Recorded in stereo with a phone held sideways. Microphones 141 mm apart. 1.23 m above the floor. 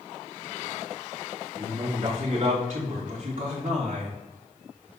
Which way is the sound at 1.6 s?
50° right (ahead or behind).